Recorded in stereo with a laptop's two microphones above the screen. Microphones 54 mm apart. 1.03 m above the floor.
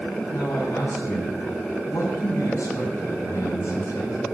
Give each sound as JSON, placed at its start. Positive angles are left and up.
{"t": 0.3, "sound": "a man speaking", "side_deg": 75, "distance_m": 7.5}